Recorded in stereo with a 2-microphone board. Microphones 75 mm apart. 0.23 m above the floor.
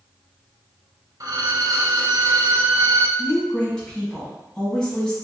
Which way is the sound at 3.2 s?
10° left (ahead or behind).